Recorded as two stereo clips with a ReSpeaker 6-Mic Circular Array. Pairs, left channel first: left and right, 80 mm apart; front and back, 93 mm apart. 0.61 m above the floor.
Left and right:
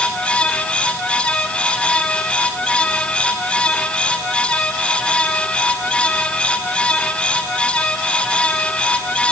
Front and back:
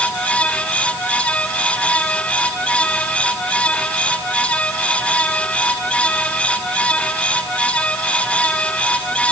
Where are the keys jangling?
I don't hear keys jangling.